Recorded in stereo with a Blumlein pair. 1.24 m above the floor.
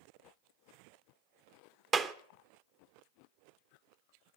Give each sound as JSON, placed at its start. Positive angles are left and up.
{"t": 1.9, "sound": "a clap", "azimuth_deg": -25, "distance_m": 0.9}